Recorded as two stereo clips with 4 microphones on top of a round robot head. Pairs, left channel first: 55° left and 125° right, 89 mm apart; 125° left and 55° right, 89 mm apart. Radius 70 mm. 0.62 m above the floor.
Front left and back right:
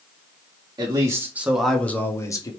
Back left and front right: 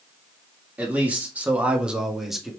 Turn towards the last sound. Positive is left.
turn(degrees=30)